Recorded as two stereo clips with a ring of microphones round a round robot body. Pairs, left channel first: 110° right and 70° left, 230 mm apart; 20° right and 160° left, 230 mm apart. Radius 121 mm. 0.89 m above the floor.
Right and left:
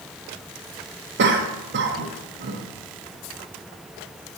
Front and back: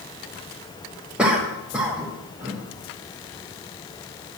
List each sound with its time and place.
1.2 s a cough: 75° left, 1.2 m